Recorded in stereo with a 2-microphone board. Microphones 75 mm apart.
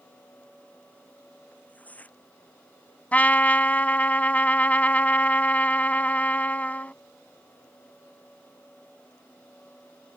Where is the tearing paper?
20° left (ahead or behind).